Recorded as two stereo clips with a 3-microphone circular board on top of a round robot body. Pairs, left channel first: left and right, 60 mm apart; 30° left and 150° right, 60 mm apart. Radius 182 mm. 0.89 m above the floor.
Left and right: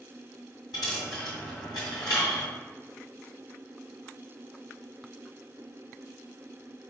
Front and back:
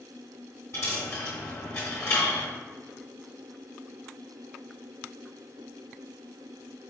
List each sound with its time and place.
0.7 s a dropped coin: 85° left, 0.7 m